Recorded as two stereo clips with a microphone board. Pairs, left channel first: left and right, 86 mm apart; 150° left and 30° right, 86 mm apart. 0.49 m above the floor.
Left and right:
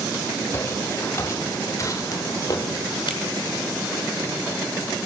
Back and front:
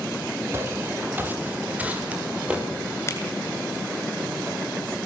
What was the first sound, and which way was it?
Footsteps, 30° left.